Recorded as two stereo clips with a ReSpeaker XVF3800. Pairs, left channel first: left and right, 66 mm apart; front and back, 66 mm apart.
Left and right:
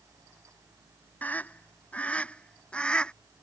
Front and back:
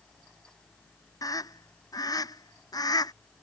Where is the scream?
25° left; by 3.1 s 15° left.